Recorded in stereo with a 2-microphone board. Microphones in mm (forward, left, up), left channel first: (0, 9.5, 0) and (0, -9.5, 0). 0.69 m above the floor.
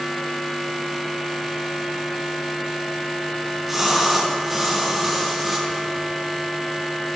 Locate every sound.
3.4 s a splash: 10° right (ahead or behind), 6 m